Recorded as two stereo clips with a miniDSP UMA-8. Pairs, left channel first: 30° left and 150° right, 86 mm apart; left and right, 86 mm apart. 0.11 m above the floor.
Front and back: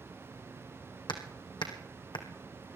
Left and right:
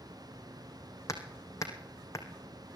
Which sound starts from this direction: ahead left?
Hammering, at 1.1 s.